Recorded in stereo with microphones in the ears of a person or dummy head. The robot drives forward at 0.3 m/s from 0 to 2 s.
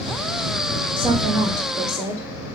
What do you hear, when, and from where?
1.0 s a woman speaking: 20° right (ahead or behind), 1.7 m